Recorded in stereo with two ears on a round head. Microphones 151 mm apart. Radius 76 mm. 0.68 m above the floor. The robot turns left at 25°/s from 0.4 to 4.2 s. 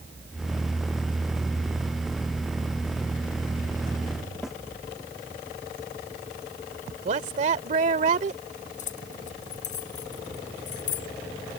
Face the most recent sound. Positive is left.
turn(degrees=50)  # may be behind; listen again after turning